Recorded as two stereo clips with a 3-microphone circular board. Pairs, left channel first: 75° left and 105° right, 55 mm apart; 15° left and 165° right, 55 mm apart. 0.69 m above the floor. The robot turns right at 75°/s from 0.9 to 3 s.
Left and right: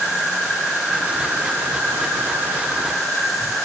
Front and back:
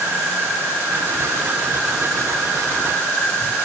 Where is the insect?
175° right, 1.1 m; by 3.7 s 20° right, 1.1 m.